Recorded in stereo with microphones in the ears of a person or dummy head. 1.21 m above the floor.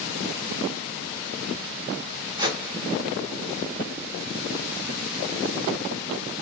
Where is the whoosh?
20° right (ahead or behind), 0.7 m.